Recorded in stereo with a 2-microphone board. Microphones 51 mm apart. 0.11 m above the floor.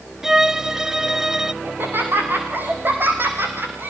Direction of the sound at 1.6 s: 40° right (ahead or behind).